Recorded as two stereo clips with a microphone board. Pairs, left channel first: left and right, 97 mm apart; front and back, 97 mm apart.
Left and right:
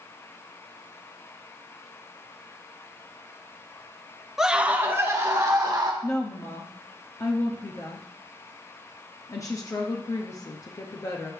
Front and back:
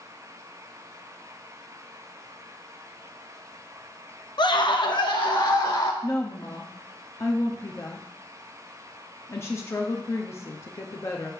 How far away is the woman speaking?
About 0.7 m.